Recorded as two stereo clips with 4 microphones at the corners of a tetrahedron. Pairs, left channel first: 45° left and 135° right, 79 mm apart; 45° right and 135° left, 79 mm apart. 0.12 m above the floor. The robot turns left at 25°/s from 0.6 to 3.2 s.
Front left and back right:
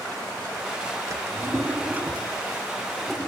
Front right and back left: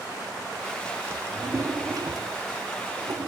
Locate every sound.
1.1 s a drawer: 175° right, 0.7 m; by 3.3 s 130° left, 0.7 m